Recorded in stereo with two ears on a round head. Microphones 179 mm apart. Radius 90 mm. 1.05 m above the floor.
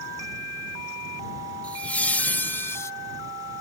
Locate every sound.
1.6 s laughter: 5° left (ahead or behind); by 2.9 s 15° left (ahead or behind)